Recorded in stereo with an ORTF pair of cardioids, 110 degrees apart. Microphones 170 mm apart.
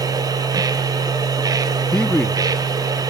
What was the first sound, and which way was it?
A machine running, 25° right.